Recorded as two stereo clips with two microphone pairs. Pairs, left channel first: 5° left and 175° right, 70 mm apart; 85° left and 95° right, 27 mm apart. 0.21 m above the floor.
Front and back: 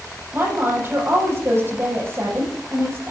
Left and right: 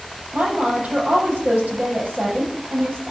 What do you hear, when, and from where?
0.3 s a woman speaking: 120° right, 7 m